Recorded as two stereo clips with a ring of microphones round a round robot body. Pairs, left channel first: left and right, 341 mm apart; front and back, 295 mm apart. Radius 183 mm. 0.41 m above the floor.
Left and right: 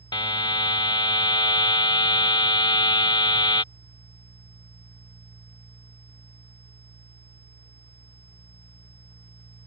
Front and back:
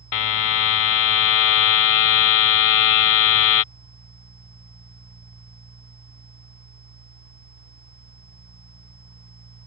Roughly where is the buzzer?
Ahead.